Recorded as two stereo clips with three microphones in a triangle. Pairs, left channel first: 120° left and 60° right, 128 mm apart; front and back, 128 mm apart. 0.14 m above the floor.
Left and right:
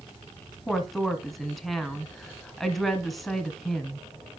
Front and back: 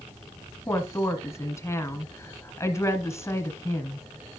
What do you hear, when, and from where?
0.7 s a woman speaking: 30° left, 1.2 m